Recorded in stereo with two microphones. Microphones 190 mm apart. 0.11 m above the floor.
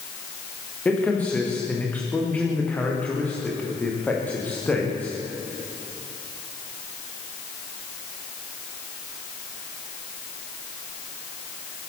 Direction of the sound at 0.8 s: 5° left (ahead or behind).